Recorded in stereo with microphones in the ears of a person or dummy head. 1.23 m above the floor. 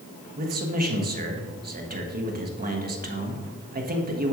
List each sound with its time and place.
0.4 s a man speaking: 45° right (ahead or behind), 1.6 m